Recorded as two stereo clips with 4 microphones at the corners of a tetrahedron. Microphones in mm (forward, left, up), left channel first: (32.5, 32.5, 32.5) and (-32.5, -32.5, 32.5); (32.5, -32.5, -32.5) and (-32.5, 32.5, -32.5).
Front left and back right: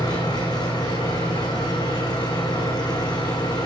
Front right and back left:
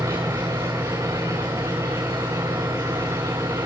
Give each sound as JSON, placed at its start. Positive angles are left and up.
{"t": 0.0, "sound": "an engine running", "azimuth_deg": 85, "distance_m": 6.0}